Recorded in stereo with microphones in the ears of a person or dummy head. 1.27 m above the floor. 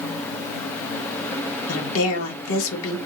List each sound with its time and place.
1.7 s a woman speaking: 70° left (ahead or behind), 1.9 m